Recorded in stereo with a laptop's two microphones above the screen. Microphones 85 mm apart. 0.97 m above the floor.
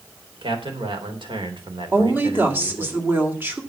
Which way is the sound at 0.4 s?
80° right.